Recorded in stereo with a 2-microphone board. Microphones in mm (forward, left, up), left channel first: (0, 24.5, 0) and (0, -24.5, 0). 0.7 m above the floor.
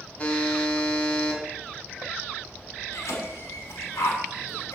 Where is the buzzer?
25° left (ahead or behind), 4 m.